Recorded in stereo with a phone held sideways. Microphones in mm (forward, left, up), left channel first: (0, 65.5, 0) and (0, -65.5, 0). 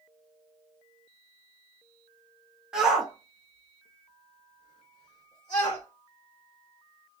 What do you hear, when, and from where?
2.7 s a shout: 5° right (ahead or behind), 1.1 m; by 5.8 s 35° left (ahead or behind), 1.0 m